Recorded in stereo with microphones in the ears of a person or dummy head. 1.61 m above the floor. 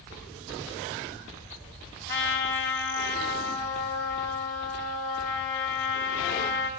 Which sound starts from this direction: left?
A trumpet, at 2.1 s.